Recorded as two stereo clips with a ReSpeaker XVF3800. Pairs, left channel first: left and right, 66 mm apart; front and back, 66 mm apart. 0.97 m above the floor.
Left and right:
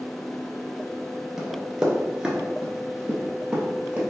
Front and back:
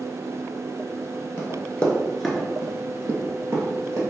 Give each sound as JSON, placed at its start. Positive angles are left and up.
{"t": 1.4, "sound": "running footsteps", "azimuth_deg": -10, "distance_m": 1.1}